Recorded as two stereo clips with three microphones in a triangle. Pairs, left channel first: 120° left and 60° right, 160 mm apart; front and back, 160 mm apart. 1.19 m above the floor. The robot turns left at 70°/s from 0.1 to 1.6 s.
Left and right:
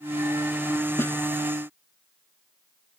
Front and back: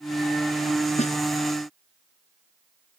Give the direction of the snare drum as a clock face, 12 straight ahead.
10 o'clock.